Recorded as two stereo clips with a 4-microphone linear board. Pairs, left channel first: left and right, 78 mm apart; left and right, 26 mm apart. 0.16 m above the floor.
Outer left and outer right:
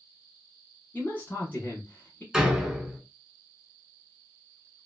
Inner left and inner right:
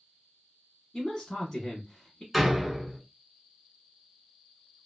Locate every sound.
0.9 s a man speaking: 25° left (ahead or behind), 1.1 m
2.3 s a door slam: 5° right (ahead or behind), 1.0 m